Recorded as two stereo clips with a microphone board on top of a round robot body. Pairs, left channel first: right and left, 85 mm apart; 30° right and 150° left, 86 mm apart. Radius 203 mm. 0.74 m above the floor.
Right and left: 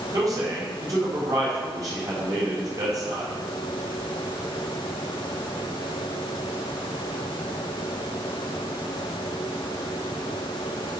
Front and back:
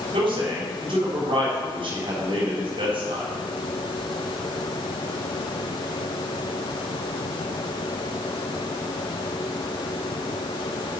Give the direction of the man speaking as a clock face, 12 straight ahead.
7 o'clock.